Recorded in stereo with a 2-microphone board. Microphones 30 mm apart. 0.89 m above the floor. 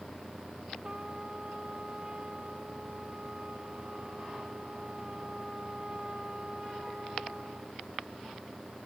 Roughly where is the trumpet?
Right.